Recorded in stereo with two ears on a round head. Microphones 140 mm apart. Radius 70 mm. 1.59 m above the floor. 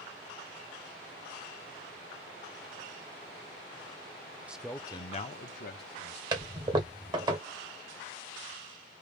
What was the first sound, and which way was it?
A man speaking, 10° right (ahead or behind).